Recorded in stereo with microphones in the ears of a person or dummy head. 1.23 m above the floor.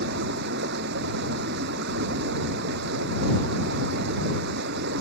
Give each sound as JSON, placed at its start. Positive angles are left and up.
{"t": 0.0, "sound": "running water", "side_deg": -60}